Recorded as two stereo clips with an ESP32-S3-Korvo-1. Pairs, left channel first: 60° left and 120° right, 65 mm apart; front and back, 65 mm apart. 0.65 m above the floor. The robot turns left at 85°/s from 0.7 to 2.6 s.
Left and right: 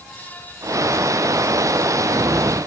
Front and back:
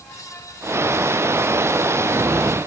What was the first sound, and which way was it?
Only background noise.